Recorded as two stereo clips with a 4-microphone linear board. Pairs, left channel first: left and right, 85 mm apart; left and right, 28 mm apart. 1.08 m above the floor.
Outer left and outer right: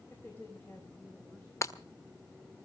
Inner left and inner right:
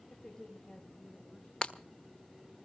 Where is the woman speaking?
25° left (ahead or behind), 4.5 m.